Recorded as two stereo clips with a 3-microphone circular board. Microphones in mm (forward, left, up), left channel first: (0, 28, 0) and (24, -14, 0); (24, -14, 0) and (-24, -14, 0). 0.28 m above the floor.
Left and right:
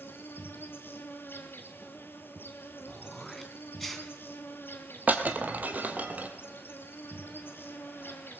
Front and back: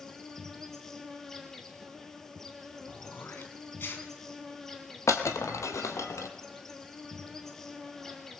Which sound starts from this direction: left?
An insect, at 0.0 s.